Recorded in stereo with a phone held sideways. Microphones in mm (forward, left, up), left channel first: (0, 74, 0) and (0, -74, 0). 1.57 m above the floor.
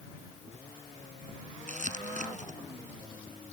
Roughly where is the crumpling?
Right.